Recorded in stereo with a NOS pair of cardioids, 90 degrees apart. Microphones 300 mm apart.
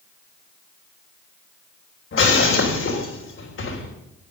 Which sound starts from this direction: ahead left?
Breaking glass, at 2.1 s.